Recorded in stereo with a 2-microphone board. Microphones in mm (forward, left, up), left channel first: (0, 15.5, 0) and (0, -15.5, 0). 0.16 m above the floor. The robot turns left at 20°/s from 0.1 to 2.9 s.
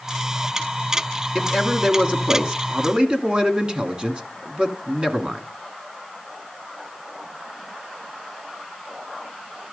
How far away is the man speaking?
About 1.8 m.